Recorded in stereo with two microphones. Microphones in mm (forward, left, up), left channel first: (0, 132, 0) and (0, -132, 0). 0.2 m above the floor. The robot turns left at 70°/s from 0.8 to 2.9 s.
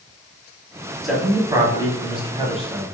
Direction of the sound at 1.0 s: Centre (ahead or behind).